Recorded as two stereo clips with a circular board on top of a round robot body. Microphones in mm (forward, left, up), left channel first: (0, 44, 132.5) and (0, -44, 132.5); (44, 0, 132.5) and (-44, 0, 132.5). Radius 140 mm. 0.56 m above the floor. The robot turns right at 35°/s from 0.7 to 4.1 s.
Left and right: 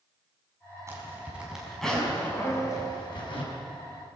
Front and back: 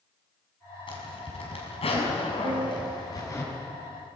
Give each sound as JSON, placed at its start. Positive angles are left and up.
{"t": 0.9, "sound": "a zipper", "azimuth_deg": -30, "distance_m": 5.5}
{"t": 2.4, "sound": "a piano", "azimuth_deg": 160, "distance_m": 2.0}